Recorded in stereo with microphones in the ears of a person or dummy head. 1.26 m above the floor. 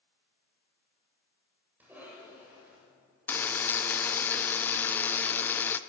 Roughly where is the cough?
Centre.